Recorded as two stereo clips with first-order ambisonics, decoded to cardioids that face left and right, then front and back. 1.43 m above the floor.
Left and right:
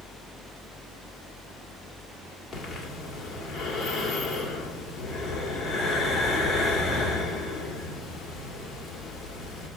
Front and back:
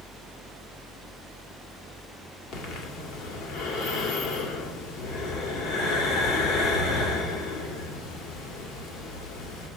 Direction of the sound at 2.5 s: 20° left.